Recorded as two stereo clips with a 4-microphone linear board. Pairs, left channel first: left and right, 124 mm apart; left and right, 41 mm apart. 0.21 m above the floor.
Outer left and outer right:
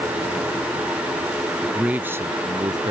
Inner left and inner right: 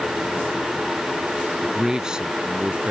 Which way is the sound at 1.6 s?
5° right (ahead or behind).